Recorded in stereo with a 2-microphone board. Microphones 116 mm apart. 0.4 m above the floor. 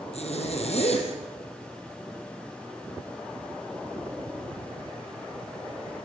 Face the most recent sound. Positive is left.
turn(degrees=65)  # may be behind; listen again after turning